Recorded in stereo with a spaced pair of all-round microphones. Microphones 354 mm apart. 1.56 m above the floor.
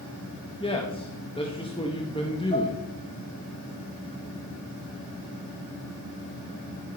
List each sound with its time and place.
0.6 s a man speaking: 15° left (ahead or behind), 1.7 m
2.5 s dishes clattering: 20° left (ahead or behind), 4 m